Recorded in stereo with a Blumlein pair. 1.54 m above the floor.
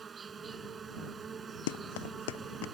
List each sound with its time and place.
0.0 s an insect: 20° right
1.7 s running footsteps: 55° left